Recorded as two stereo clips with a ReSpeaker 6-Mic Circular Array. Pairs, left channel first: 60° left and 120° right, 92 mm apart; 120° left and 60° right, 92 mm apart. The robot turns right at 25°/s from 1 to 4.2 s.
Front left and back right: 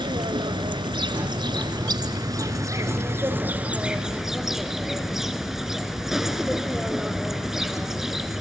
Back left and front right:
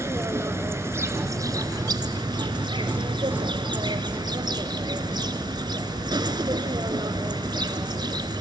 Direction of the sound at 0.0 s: 115° right.